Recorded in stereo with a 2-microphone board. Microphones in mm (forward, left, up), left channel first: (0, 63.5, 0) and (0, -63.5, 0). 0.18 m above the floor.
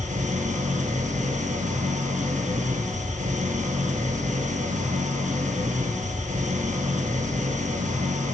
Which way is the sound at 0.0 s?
75° right (ahead or behind).